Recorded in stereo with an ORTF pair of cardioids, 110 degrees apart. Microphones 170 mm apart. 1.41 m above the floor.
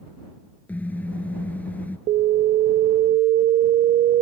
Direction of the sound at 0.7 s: 10° left.